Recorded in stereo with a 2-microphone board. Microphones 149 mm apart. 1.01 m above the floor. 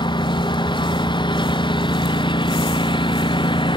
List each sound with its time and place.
0.0 s a lawn mower: 30° left (ahead or behind); by 3.8 s 35° left (ahead or behind)